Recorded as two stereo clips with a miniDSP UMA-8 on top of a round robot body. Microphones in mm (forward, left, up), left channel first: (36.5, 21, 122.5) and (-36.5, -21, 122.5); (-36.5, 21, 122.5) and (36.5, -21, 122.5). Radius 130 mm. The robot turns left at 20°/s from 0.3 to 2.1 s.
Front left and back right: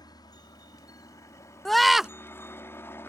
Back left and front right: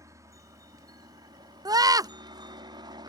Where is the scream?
55° right; by 2.1 s 65° right.